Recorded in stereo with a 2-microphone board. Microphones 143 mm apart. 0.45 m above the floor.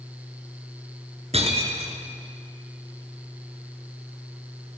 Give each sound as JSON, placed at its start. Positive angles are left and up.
{"t": 1.3, "sound": "breaking glass", "side_deg": -45, "distance_m": 2.5}